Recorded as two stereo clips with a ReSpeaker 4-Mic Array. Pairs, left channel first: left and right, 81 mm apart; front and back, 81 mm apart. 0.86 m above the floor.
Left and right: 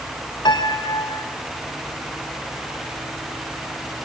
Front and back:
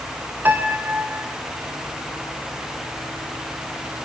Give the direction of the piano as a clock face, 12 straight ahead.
8 o'clock.